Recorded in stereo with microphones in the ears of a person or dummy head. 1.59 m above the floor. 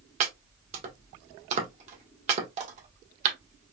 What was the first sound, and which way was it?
Chopping, 40° right (ahead or behind).